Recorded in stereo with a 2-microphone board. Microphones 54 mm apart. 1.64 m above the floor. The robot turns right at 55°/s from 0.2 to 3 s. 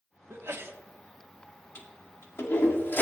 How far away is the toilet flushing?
About 1.9 m.